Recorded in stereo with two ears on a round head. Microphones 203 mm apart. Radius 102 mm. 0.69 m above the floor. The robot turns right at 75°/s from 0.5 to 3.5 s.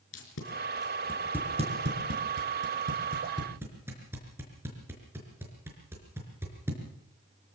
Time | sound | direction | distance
0.1 | tape being pulled | 55° left (ahead or behind) | 5 m